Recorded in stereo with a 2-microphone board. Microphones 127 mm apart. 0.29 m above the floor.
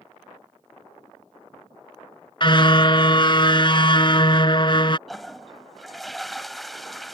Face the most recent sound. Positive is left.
turn(degrees=0)  # may be behind; listen again after turning